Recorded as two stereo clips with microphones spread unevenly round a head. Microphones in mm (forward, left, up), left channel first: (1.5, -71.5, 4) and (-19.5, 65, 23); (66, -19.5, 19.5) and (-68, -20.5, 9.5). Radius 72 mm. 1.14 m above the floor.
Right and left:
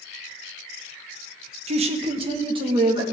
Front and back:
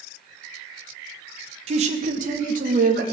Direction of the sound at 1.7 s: 145° left.